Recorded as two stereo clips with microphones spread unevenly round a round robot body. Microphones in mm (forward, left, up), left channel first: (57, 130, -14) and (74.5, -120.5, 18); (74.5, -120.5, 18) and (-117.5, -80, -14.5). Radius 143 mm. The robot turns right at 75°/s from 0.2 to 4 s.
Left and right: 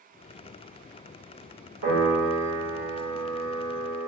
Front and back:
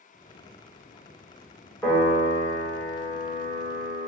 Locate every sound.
1.8 s a piano: 105° right, 1.7 m; by 4.1 s 60° left, 1.7 m